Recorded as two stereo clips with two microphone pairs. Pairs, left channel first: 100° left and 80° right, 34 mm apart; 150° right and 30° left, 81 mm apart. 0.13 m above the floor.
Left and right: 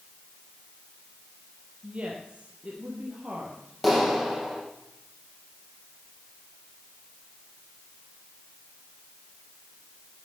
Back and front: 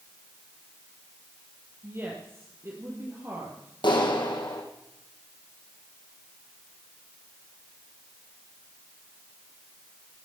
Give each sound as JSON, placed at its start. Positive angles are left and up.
{"t": 1.8, "sound": "a woman speaking", "azimuth_deg": -25, "distance_m": 3.0}
{"t": 3.8, "sound": "a clap", "azimuth_deg": -165, "distance_m": 3.5}